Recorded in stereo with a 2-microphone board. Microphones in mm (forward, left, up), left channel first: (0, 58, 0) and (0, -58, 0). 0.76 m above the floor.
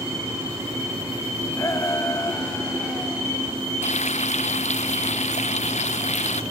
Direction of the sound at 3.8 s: 75° left (ahead or behind).